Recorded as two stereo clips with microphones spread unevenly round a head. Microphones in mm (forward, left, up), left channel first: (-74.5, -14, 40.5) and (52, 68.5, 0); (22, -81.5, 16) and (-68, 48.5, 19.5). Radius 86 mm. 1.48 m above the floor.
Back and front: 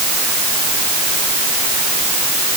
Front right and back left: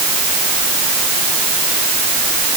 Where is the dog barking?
No dog barking in this recording.